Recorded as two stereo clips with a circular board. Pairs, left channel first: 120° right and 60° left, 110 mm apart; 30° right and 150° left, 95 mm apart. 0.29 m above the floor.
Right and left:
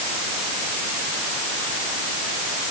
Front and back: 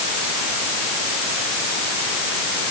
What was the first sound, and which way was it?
Only background noise.